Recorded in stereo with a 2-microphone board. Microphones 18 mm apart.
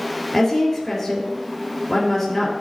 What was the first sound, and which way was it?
A woman speaking, 25° left (ahead or behind).